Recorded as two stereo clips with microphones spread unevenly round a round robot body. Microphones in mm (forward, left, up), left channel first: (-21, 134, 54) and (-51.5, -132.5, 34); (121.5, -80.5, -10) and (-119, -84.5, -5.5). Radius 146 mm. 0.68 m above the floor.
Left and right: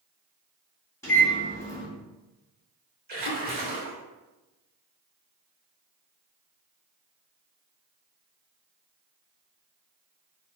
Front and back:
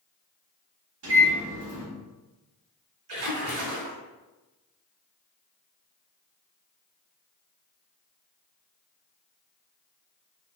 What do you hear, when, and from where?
1.0 s a microwave: 165° left, 1.5 m
3.1 s a splash: 155° right, 1.1 m